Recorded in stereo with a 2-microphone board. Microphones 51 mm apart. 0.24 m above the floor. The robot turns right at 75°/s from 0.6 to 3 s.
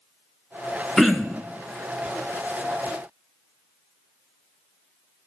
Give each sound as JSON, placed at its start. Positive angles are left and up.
{"t": 1.0, "sound": "throat clearing", "azimuth_deg": 175, "distance_m": 0.7}